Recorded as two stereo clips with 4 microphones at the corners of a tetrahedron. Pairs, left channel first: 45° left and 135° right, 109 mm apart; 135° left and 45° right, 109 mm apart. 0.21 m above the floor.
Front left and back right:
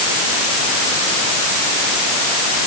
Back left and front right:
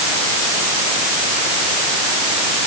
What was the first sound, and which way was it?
Only background noise.